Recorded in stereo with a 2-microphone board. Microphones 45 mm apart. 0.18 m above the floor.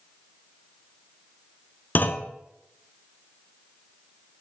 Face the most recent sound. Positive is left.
turn(degrees=45)  # may be behind; listen again after turning